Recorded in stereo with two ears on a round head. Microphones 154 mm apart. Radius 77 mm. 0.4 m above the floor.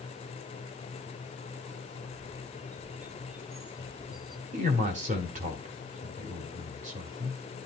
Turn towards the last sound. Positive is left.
turn(degrees=-50)  # may be behind; listen again after turning